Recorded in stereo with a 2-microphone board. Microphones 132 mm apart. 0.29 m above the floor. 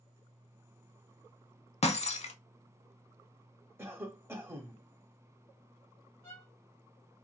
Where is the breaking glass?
55° left (ahead or behind), 0.5 m.